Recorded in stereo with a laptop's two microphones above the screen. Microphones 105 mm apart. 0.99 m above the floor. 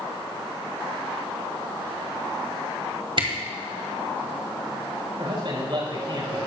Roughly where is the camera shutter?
Right.